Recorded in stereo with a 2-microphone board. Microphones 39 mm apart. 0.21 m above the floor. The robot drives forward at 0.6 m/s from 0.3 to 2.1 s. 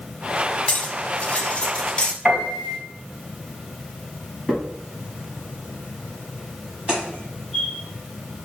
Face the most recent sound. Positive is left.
turn(degrees=-25)  # may be behind; listen again after turning